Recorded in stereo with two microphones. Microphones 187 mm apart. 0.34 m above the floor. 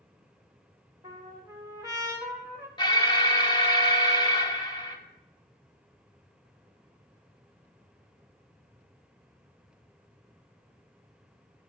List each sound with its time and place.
1.0 s a trumpet: 20° right (ahead or behind), 1.1 m
2.8 s an alarm: 25° left (ahead or behind), 0.8 m